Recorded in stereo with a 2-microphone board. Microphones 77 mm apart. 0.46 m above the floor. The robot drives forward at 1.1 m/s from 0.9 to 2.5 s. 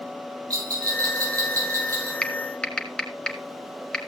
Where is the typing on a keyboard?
15° left (ahead or behind), 1.2 m.